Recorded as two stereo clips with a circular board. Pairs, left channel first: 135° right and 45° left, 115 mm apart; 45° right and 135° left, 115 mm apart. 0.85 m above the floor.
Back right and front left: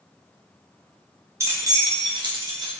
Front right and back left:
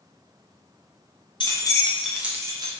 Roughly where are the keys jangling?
Ahead.